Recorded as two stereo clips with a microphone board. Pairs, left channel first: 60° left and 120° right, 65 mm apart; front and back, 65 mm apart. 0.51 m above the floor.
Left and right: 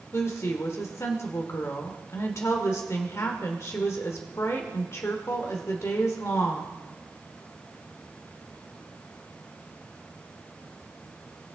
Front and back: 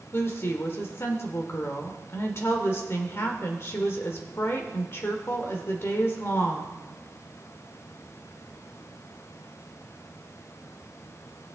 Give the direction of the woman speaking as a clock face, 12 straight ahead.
11 o'clock.